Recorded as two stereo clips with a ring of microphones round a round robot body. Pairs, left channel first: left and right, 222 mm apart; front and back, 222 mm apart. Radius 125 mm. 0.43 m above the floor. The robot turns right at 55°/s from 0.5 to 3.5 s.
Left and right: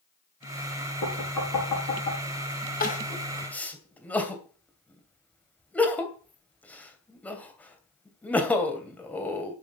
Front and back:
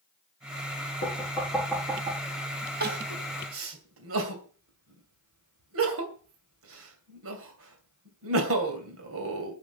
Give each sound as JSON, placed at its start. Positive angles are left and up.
{"t": 1.0, "sound": "knocking", "azimuth_deg": 55, "distance_m": 5.5}
{"t": 2.8, "sound": "crying", "azimuth_deg": 135, "distance_m": 2.5}